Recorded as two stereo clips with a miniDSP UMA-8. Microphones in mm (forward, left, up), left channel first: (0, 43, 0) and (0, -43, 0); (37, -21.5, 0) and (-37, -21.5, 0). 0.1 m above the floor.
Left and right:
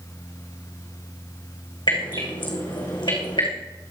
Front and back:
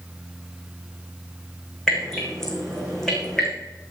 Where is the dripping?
80° left, 4.5 m.